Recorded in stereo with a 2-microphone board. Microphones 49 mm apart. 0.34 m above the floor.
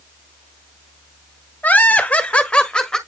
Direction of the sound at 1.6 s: 30° left (ahead or behind).